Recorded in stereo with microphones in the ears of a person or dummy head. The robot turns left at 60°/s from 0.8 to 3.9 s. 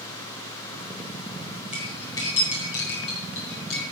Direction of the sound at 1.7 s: 5° right (ahead or behind).